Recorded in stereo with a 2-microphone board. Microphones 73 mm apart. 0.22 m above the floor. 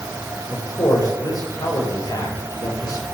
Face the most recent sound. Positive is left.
turn(degrees=60)  # may be behind; listen again after turning